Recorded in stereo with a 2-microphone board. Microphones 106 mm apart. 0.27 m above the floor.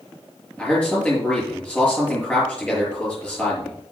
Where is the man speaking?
10° left (ahead or behind), 6 m.